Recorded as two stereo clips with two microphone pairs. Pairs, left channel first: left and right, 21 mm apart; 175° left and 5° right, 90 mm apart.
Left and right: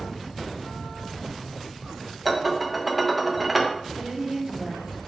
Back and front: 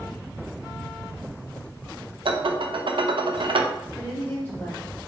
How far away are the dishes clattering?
About 0.6 m.